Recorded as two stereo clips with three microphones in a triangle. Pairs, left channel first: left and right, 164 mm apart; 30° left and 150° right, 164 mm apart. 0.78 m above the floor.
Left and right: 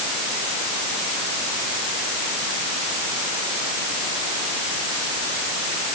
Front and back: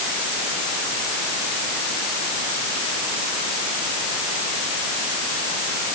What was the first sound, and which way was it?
Only background noise.